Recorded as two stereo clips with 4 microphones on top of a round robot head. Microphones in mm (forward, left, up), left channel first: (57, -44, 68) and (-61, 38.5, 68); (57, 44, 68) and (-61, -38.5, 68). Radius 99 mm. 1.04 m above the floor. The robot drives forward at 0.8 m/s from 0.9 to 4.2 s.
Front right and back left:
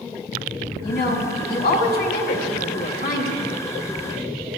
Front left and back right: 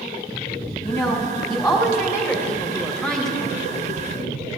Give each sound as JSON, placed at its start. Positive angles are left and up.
{"t": 0.8, "sound": "a woman speaking", "azimuth_deg": -25, "distance_m": 3.5}